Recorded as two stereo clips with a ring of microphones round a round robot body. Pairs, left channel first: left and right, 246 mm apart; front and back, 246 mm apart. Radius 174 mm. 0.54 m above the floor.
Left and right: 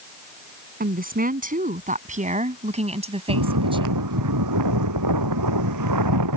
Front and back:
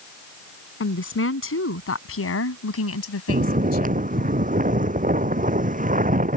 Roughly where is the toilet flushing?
I don't hear a toilet flushing.